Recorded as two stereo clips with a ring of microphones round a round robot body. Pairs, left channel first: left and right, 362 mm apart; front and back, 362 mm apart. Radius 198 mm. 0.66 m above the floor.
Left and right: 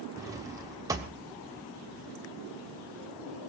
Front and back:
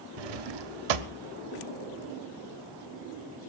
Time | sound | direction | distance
0.2 | a drawer | 170° right | 1.0 m